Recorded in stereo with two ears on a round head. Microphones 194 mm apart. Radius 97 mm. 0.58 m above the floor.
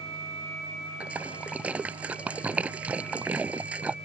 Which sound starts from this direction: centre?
A splash, at 1.0 s.